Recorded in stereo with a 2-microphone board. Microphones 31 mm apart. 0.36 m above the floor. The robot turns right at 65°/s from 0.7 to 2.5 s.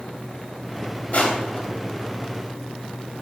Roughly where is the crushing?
Left.